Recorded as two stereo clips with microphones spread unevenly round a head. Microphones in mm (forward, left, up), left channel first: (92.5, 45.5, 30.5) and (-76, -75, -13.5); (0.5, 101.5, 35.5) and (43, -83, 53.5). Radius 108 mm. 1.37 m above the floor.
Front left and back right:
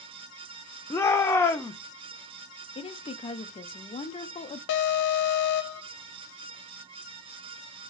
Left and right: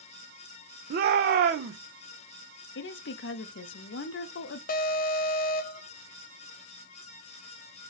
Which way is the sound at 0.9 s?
40° right.